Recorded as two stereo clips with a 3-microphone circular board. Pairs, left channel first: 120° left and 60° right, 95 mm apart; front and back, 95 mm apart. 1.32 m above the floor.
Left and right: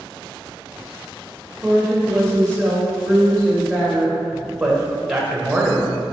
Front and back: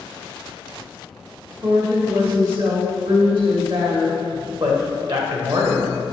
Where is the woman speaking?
160° right, 2.5 m.